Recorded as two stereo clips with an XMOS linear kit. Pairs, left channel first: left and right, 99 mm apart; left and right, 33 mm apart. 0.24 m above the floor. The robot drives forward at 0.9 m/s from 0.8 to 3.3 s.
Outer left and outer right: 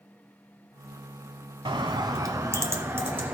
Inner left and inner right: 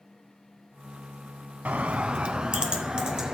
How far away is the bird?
About 0.8 m.